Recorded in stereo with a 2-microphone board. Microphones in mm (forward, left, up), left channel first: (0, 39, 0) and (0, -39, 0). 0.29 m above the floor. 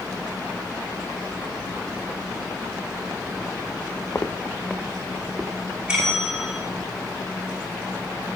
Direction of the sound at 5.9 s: 10° right (ahead or behind).